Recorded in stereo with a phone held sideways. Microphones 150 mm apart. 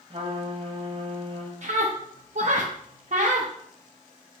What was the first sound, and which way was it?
A trumpet, 40° right (ahead or behind).